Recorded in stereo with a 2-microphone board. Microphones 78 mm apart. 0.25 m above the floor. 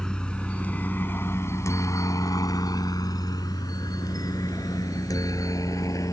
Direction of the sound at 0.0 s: 10° left (ahead or behind).